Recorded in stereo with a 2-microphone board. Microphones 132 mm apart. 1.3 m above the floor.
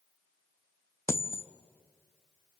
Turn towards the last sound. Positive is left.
turn(degrees=20)  # may be behind; listen again after turning